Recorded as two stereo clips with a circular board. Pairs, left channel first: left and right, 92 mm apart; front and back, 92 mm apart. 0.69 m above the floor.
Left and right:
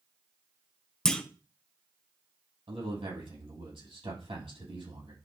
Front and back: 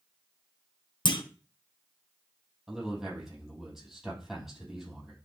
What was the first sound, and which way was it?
A clunk, 10° left.